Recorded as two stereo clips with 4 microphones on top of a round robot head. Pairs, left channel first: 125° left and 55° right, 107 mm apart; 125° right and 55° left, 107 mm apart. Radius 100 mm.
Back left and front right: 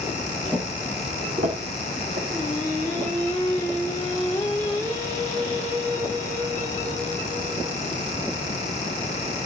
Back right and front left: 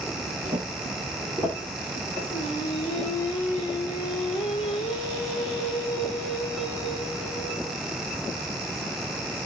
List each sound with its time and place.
0.5 s footsteps: 20° left, 1.4 m; by 2.2 s 55° right, 2.5 m
2.3 s singing: 165° right, 1.3 m